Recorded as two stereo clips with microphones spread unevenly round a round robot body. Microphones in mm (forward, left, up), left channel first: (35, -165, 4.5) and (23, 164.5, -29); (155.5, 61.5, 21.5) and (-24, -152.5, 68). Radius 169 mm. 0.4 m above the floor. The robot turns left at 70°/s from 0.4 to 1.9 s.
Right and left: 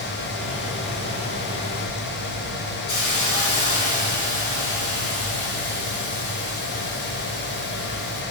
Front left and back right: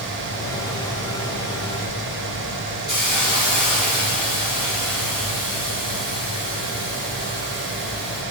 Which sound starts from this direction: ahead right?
A hiss, at 2.9 s.